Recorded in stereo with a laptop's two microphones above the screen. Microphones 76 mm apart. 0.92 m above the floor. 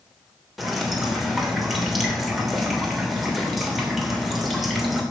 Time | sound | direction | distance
0.6 | dripping | centre (ahead or behind) | 3 m